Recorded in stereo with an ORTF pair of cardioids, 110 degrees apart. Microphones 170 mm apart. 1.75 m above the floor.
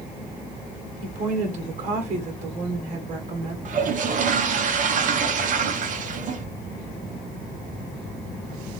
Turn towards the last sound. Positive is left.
turn(degrees=-50)